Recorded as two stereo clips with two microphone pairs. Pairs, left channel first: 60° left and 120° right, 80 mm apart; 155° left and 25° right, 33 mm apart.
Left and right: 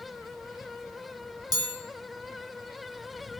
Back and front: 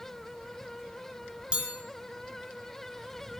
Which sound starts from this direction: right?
A chime, at 1.5 s.